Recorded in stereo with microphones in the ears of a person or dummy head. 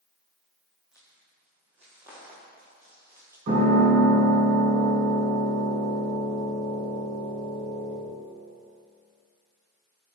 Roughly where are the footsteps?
Centre.